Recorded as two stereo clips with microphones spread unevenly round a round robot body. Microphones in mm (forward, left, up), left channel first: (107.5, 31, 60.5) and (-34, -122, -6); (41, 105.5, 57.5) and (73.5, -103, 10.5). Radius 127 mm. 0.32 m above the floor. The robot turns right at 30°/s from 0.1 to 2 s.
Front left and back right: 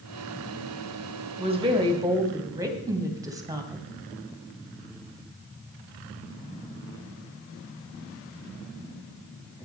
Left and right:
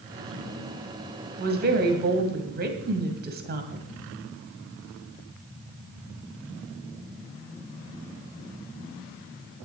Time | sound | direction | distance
1.4 | a woman speaking | 95° right | 2 m